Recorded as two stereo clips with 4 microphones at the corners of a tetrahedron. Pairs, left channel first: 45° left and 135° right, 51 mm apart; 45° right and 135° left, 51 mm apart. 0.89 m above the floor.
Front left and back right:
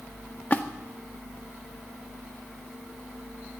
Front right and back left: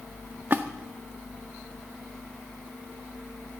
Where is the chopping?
I don't hear chopping.